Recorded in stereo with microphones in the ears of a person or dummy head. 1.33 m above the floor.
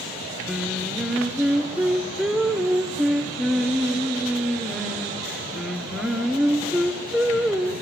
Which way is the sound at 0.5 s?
5° right (ahead or behind).